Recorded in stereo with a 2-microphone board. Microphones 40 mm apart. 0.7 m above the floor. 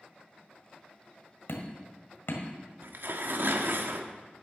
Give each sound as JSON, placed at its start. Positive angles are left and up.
{"t": 1.5, "sound": "hammering", "side_deg": 80, "distance_m": 1.7}
{"t": 2.8, "sound": "tearing paper", "side_deg": -60, "distance_m": 0.9}